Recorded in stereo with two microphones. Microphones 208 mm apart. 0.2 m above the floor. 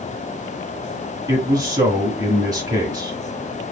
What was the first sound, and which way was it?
A man speaking, 20° right (ahead or behind).